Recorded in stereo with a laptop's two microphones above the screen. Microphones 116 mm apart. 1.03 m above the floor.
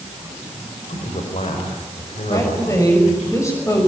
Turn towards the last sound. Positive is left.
turn(degrees=25)  # may be behind; listen again after turning